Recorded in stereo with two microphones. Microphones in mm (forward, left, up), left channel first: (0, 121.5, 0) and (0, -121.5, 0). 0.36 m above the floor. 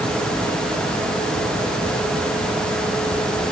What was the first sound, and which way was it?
Only background noise.